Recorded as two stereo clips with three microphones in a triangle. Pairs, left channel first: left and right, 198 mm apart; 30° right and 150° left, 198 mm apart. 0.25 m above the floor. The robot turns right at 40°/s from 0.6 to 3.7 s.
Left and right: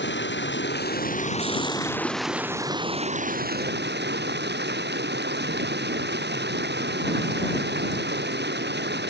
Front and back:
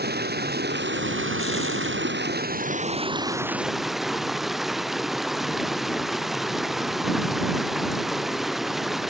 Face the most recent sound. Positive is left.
turn(degrees=-120)